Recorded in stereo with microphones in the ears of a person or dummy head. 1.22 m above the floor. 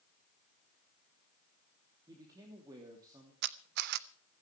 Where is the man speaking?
20° right (ahead or behind), 3 m.